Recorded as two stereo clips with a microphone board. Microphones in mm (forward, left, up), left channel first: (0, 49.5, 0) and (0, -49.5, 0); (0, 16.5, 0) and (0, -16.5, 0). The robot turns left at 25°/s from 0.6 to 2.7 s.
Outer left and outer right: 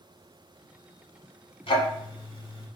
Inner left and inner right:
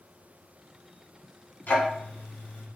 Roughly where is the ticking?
Left.